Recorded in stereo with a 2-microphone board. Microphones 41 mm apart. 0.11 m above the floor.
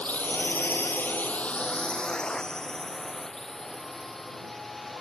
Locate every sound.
0.0 s a drone: 35° left (ahead or behind); by 5.0 s 5° left (ahead or behind)